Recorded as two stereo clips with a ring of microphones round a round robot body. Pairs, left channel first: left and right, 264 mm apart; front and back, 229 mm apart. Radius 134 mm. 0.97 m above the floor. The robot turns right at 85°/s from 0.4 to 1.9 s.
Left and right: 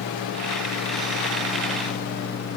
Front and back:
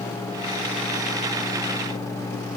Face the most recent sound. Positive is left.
No sound to turn to.